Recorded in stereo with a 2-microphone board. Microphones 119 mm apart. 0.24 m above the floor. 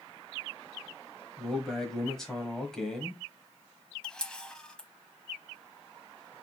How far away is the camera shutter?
About 0.8 m.